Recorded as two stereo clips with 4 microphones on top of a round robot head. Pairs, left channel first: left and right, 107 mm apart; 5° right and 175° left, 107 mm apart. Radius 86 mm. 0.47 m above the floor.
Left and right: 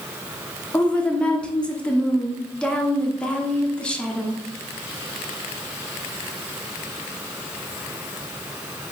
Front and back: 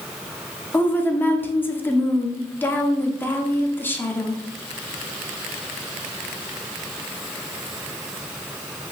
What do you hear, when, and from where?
0.7 s a woman speaking: 30° left, 0.8 m